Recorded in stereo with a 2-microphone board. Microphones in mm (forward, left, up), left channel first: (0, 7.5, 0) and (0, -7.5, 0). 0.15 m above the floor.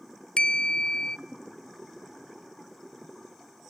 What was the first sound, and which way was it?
A bell, 60° left (ahead or behind).